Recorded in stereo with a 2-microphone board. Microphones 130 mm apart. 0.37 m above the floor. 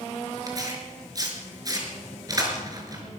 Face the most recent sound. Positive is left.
turn(degrees=-30)  # may be behind; listen again after turning